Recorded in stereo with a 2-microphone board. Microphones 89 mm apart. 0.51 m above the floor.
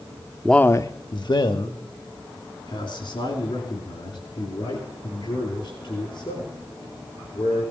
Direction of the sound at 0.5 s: Centre (ahead or behind).